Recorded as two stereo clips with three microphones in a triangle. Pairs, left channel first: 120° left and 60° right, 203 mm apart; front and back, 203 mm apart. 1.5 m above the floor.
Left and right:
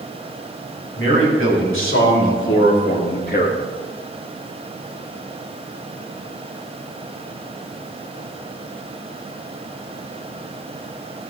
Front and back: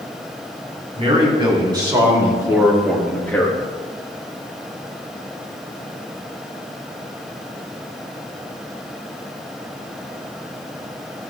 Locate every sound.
1.0 s a man speaking: 120° left, 4 m; by 3.6 s 70° left, 2 m